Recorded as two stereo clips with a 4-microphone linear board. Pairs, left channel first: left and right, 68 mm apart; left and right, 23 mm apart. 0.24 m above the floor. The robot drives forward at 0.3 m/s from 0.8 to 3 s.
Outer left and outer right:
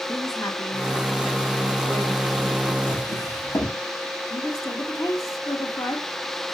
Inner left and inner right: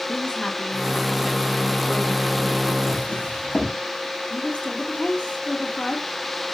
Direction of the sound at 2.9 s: 65° left (ahead or behind).